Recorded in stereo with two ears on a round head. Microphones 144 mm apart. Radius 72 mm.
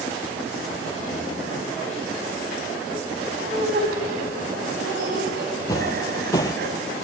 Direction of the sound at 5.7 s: 20° left (ahead or behind).